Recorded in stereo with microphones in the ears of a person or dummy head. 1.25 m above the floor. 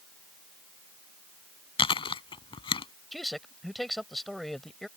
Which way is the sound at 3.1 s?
5° right (ahead or behind).